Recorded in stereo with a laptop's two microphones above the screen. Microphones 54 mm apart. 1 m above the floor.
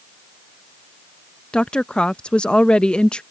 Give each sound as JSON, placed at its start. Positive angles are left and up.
{"t": 1.5, "sound": "a woman speaking", "side_deg": 20}